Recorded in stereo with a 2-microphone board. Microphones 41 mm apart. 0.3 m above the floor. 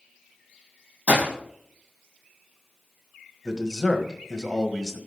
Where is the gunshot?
35° right (ahead or behind), 4 m.